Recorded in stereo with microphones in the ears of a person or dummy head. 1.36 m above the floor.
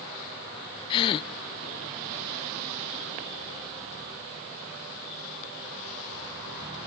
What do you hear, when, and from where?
0.9 s a gasp: 25° left (ahead or behind), 0.6 m